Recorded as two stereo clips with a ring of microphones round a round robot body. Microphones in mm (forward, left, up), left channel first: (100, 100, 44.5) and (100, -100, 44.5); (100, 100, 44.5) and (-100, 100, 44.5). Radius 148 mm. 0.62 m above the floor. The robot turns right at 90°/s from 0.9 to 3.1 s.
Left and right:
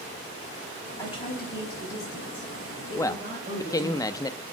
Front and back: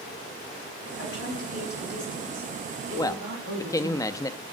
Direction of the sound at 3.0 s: 30° left.